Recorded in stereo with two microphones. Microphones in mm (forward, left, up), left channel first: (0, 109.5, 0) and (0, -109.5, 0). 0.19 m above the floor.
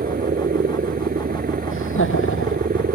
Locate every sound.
0.0 s a helicopter: 45° right (ahead or behind)
1.7 s laughter: 80° left